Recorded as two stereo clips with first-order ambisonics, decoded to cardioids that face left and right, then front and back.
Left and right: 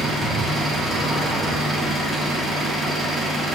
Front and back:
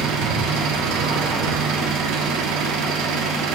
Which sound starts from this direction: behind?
An engine running, at 0.0 s.